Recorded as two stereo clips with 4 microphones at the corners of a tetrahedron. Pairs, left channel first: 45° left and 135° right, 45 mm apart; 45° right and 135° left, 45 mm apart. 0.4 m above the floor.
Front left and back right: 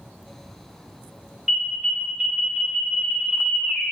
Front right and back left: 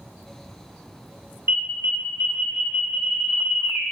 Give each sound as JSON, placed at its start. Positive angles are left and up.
{"t": 1.5, "sound": "an alarm", "azimuth_deg": 150, "distance_m": 1.7}